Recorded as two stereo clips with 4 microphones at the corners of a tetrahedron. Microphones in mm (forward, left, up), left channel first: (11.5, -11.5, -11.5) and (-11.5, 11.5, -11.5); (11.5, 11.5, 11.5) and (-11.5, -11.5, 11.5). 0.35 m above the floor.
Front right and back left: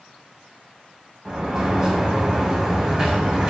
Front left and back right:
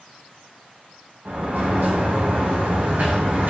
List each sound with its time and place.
1.2 s a sliding door: 165° right, 2.5 m